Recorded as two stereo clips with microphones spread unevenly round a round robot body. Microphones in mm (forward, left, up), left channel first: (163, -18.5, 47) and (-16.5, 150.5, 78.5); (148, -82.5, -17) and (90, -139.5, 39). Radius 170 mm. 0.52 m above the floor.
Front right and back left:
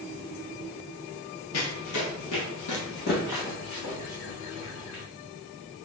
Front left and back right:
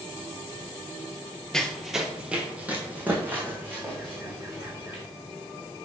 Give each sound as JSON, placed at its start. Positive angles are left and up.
{"t": 1.5, "sound": "running footsteps", "azimuth_deg": -70, "distance_m": 0.7}